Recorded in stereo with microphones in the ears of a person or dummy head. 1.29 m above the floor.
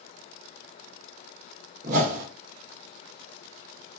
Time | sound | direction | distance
1.8 | a whoosh | 50° right (ahead or behind) | 0.8 m